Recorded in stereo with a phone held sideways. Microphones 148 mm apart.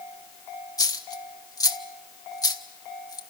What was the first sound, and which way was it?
A dropped coin, 25° left (ahead or behind).